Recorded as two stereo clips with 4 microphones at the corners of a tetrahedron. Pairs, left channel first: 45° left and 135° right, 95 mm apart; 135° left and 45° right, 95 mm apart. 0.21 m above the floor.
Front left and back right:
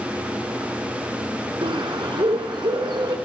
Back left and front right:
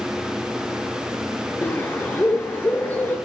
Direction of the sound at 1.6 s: 160° right.